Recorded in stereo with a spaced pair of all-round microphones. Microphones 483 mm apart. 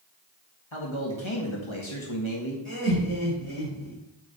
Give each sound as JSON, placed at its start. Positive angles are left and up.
{"t": 0.7, "sound": "a man speaking", "side_deg": 70, "distance_m": 1.8}
{"t": 2.6, "sound": "laughter", "side_deg": 85, "distance_m": 4.0}